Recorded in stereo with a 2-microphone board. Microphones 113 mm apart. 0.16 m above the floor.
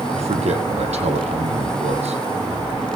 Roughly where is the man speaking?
Right.